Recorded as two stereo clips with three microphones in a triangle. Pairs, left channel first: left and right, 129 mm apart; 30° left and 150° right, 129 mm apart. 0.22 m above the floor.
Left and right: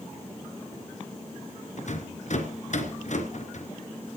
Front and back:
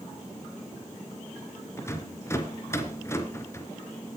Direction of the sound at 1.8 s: 95° left.